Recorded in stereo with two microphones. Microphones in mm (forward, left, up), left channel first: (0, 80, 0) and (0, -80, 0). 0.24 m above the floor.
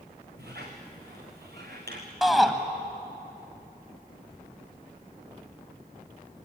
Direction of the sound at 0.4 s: 85° right.